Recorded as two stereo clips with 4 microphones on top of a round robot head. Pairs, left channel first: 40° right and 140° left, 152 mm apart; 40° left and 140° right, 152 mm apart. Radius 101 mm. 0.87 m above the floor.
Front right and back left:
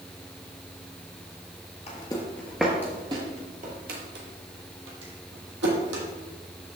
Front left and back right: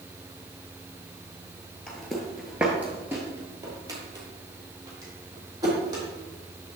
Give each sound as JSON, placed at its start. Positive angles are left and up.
{"t": 1.9, "sound": "footsteps", "azimuth_deg": -45, "distance_m": 0.9}